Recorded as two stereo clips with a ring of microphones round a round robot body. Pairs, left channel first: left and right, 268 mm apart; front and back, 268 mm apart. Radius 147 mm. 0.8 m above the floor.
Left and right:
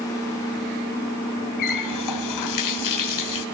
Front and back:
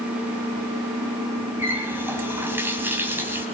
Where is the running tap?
95° left, 3.5 m.